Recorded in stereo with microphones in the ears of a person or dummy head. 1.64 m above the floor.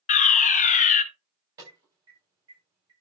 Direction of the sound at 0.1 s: 35° left (ahead or behind).